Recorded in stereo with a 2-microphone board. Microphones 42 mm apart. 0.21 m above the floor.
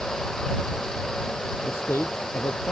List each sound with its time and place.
1.6 s a man speaking: 70° left (ahead or behind)